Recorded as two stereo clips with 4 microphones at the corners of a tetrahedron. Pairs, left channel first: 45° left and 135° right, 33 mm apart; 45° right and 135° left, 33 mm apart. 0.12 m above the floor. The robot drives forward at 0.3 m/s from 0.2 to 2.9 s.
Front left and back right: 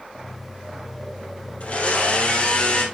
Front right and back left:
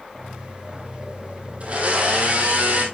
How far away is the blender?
About 2 m.